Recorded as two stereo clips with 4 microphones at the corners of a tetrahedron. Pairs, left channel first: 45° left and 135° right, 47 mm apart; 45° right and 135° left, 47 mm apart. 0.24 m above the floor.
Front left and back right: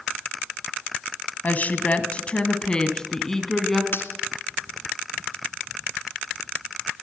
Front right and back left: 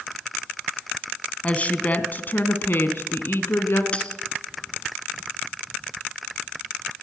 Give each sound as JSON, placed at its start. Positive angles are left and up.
{"t": 1.4, "sound": "a woman speaking", "azimuth_deg": 5, "distance_m": 1.9}
{"t": 3.9, "sound": "a dropped coin", "azimuth_deg": 15, "distance_m": 1.5}